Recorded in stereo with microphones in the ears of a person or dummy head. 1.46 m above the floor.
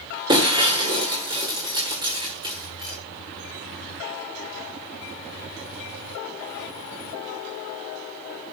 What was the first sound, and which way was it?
Breaking glass, 20° right (ahead or behind).